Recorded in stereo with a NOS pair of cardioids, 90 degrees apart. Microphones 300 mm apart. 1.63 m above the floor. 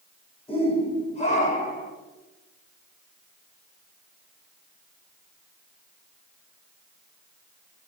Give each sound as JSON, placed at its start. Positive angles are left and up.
{"t": 0.5, "sound": "a shout", "azimuth_deg": 20, "distance_m": 8.5}